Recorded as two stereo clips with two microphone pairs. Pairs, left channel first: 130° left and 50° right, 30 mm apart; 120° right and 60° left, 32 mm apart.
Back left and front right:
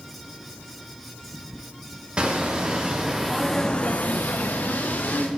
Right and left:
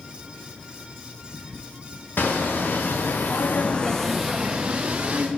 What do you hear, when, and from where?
2.2 s footsteps: 110° right, 1.5 m; by 5.3 s 110° left, 1.4 m